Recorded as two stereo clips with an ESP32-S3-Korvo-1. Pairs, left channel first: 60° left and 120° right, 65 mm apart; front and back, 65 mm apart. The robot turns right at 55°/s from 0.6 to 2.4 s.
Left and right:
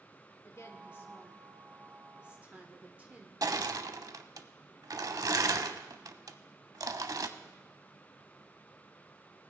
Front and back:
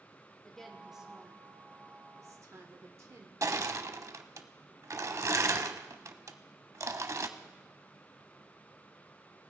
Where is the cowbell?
No cowbell in this recording.